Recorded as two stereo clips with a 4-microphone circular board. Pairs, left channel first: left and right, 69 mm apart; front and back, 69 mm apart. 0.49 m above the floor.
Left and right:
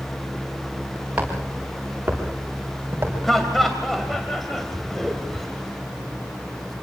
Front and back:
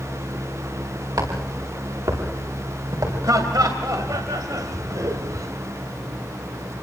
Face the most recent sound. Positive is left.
turn(degrees=175)